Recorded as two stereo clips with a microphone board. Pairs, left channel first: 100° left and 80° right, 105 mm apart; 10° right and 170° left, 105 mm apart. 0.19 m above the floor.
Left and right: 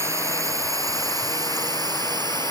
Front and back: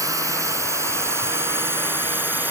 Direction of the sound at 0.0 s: 140° right.